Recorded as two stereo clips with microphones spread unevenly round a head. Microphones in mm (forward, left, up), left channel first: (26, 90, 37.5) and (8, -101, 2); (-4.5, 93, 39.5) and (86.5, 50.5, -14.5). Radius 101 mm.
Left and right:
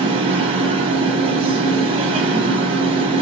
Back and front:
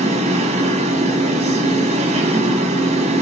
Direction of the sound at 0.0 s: 30° right.